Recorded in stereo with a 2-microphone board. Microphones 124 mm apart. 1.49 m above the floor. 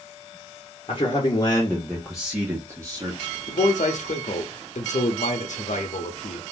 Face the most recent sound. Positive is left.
turn(degrees=75)  # may be behind; listen again after turning